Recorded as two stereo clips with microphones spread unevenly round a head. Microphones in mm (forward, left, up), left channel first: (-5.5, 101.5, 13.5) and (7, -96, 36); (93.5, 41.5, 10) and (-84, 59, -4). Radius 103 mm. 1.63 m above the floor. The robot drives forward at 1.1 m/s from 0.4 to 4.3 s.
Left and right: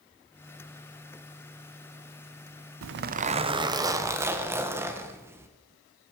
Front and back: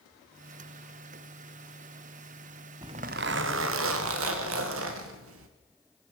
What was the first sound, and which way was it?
A zipper, 110° right.